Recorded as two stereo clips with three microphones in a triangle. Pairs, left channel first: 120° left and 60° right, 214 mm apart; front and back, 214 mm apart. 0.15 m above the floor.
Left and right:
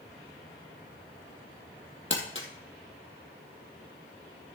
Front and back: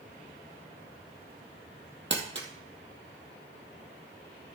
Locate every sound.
2.1 s crumpling: 150° left, 1.7 m